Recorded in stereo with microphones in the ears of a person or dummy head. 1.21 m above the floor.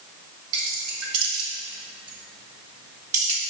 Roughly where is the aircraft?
I don't hear an aircraft.